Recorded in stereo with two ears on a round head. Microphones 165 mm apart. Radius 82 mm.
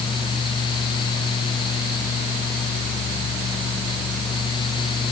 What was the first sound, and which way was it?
Only background noise.